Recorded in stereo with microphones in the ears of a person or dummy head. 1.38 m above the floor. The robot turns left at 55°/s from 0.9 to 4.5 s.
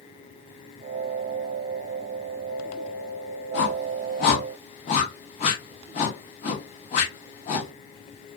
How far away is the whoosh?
About 1.0 m.